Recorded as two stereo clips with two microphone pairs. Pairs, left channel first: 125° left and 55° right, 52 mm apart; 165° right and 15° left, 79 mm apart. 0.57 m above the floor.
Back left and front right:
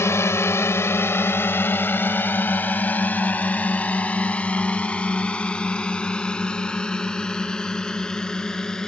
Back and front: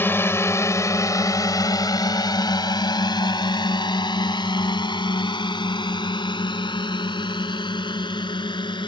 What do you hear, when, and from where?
0.0 s a drone: 140° left; by 8.9 s 155° right